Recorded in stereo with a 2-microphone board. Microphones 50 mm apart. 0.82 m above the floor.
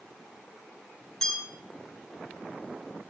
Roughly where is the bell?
Centre.